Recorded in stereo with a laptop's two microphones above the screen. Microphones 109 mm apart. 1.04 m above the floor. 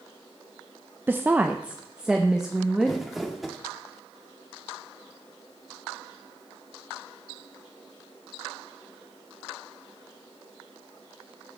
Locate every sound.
1.1 s a woman speaking: 20° right (ahead or behind), 0.6 m; by 3.0 s 5° right (ahead or behind), 1.6 m
2.9 s crumpling: centre (ahead or behind), 2.0 m